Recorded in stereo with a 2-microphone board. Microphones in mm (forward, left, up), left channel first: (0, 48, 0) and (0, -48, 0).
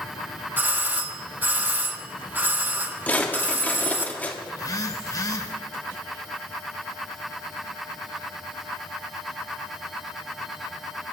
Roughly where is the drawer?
Centre.